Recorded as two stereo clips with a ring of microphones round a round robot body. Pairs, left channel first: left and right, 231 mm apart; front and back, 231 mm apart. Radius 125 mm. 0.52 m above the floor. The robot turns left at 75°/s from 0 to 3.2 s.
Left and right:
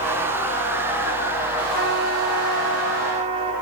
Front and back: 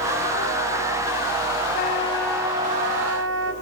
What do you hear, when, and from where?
1.7 s a trumpet: 50° right, 2.5 m; by 3.5 s 155° right, 2.5 m